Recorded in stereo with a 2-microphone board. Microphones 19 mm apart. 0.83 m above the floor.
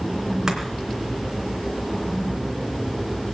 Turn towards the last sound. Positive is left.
turn(degrees=-30)  # may be behind; listen again after turning